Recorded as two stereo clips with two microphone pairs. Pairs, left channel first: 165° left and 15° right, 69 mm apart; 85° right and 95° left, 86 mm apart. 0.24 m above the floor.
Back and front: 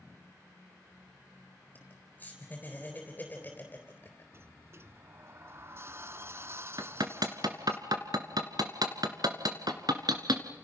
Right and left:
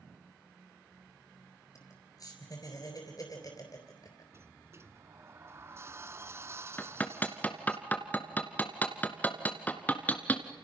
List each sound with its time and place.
1.8 s laughter: 130° right, 4 m
4.3 s a sliding door: 40° left, 0.8 m
6.8 s hammering: 15° right, 2.0 m